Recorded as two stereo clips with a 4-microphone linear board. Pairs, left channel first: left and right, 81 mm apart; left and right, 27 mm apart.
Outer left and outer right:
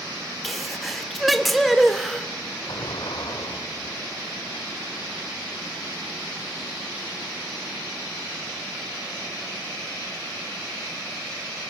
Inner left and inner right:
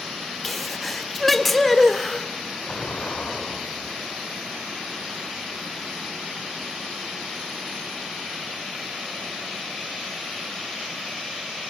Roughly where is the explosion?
Left.